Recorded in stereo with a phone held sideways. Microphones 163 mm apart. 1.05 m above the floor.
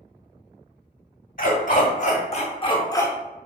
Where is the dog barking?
55° left (ahead or behind), 1.2 m; by 3.1 s 15° left (ahead or behind), 0.7 m.